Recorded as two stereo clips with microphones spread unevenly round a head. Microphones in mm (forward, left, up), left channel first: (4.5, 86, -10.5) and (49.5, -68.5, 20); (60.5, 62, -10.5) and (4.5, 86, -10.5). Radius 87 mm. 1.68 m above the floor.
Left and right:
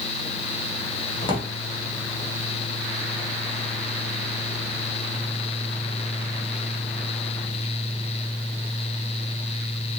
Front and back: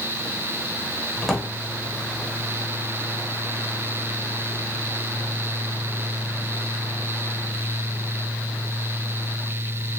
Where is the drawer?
65° left, 0.8 m.